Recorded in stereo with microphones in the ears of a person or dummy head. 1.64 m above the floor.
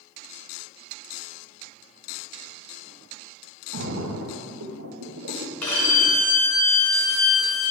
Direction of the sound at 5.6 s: 15° left (ahead or behind).